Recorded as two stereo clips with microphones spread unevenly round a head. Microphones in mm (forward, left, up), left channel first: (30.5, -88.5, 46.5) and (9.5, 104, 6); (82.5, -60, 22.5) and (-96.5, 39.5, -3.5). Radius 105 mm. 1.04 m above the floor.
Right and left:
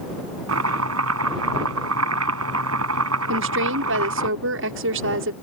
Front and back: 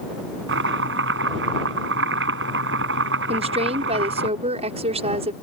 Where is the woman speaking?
90° left.